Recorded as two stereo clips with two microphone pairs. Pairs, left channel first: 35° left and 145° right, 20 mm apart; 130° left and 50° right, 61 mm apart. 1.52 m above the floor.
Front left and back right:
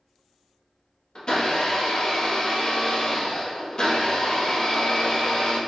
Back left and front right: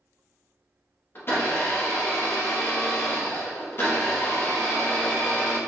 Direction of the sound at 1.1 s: 80° left.